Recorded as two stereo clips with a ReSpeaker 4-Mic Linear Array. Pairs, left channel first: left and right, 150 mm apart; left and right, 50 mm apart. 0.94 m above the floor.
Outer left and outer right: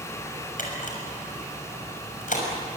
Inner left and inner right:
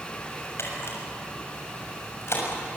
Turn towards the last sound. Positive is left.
turn(degrees=60)  # may be behind; listen again after turning